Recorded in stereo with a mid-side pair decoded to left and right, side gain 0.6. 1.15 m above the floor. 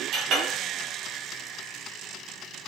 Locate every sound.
0.1 s a clink: 60° right, 0.9 m